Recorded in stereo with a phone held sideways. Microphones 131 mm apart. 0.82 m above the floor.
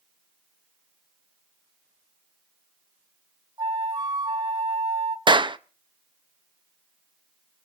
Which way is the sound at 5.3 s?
35° right (ahead or behind).